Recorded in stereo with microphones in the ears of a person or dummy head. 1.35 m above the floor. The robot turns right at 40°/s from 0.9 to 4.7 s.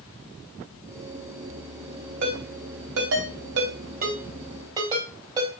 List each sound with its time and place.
2.2 s a ringtone: 55° right (ahead or behind), 3.5 m; by 5.6 s 25° right (ahead or behind), 3.5 m